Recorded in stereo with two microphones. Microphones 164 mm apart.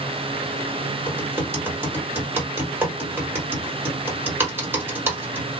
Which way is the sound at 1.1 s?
15° right (ahead or behind).